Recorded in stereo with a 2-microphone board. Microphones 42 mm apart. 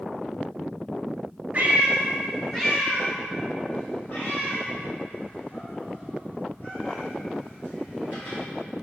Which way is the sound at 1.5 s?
35° right (ahead or behind).